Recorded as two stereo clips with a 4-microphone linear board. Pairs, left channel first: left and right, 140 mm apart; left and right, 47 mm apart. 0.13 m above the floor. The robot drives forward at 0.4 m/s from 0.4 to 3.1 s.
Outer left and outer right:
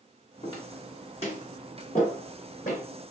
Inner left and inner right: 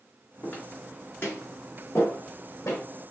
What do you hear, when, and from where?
0.4 s footsteps: 35° left (ahead or behind), 2 m; by 2.9 s 70° left (ahead or behind), 3 m